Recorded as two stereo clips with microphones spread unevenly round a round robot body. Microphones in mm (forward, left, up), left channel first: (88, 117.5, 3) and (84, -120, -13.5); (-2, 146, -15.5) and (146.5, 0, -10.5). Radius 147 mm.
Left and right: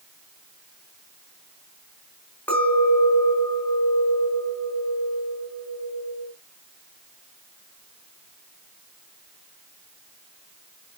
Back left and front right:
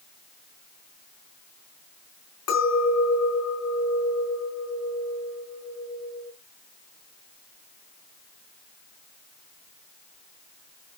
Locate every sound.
2.5 s a clink: 175° left, 4 m